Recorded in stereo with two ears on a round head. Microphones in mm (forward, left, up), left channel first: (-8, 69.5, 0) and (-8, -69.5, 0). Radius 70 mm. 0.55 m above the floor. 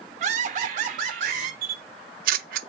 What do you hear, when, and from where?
0.2 s laughter: 45° right (ahead or behind), 1.0 m
1.6 s a camera shutter: 60° right (ahead or behind), 0.6 m